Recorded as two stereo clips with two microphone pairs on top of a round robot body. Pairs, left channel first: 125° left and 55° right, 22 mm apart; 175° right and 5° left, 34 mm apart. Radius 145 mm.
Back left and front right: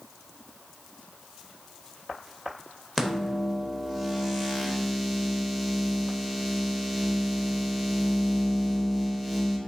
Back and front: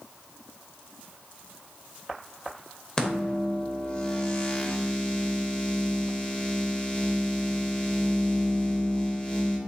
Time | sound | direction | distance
3.0 | a microwave | 140° right | 1.1 m